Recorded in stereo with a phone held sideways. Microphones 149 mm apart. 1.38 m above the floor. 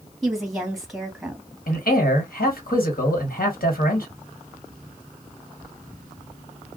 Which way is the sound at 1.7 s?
85° left.